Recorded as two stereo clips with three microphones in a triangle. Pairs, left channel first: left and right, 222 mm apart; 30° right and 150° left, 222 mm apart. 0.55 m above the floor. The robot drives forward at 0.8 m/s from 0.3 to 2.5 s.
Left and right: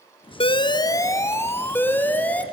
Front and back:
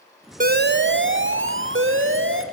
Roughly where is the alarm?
Behind left.